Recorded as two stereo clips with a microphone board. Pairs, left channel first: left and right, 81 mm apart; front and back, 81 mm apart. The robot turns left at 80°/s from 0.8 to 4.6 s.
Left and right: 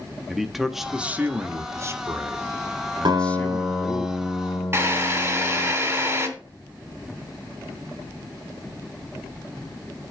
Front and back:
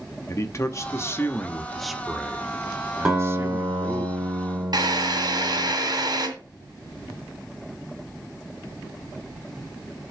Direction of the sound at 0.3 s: 5° right.